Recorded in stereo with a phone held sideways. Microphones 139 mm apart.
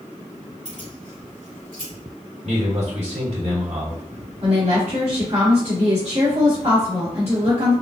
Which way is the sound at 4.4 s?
55° right (ahead or behind).